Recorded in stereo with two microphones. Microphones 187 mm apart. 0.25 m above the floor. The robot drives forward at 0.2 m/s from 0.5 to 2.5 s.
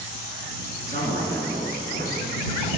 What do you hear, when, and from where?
0.9 s a man speaking: 70° right (ahead or behind), 2.5 m; by 2.3 s 65° right (ahead or behind), 2.5 m